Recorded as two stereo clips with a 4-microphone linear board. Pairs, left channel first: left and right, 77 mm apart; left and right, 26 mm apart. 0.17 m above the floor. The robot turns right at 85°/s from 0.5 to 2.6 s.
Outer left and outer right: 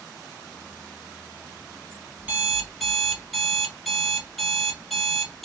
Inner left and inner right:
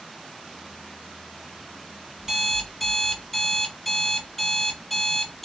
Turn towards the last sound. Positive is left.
turn(degrees=0)